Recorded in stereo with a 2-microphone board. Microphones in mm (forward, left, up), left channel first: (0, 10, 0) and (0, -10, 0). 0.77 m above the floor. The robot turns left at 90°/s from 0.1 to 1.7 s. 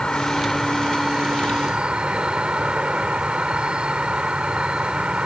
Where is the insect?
60° left; by 5.3 s 85° right.